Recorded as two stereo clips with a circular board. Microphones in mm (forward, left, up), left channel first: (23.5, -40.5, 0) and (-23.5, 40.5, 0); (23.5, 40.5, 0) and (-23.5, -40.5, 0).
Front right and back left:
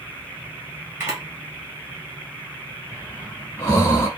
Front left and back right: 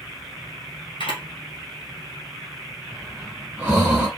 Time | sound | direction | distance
1.0 | a camera shutter | 60° left | 1.3 m
2.9 | breathing | 50° right | 1.1 m